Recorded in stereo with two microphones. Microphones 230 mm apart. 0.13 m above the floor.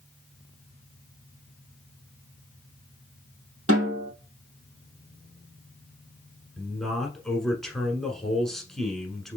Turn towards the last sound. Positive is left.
turn(degrees=0)  # may be behind; listen again after turning